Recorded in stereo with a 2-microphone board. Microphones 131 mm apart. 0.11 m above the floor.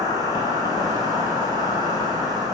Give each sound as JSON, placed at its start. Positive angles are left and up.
{"t": 0.0, "sound": "an insect", "side_deg": 30, "distance_m": 1.2}